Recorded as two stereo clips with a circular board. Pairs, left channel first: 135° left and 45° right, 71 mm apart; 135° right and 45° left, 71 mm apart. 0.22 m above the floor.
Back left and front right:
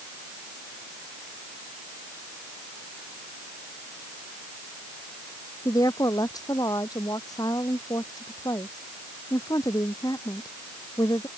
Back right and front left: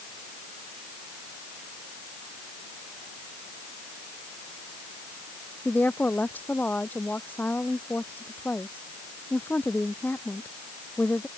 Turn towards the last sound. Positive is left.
turn(degrees=160)